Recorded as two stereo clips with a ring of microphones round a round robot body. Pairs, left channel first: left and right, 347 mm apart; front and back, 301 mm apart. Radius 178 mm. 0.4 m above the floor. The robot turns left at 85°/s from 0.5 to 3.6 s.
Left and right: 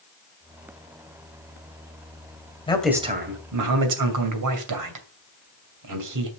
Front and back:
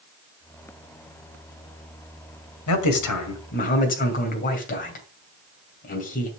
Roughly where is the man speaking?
Ahead.